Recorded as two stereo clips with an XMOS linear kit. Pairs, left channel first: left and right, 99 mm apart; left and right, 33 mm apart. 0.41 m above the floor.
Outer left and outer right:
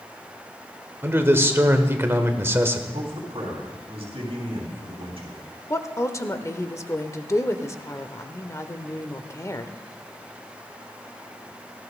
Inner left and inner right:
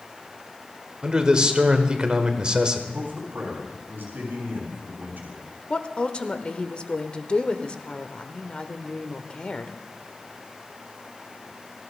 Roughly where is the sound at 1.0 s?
Right.